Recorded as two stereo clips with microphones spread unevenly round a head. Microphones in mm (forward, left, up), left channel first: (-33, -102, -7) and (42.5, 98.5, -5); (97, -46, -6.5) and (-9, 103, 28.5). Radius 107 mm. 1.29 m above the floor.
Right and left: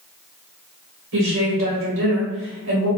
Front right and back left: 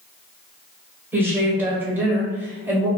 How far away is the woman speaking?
About 1.4 m.